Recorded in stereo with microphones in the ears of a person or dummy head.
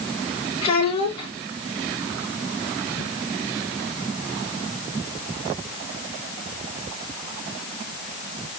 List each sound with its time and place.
0.6 s a child speaking: 40° left (ahead or behind), 3 m